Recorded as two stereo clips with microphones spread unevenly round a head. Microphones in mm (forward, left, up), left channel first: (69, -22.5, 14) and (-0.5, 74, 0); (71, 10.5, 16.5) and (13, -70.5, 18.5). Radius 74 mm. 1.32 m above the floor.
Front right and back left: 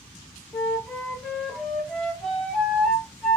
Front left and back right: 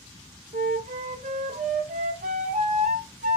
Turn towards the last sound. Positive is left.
turn(degrees=-140)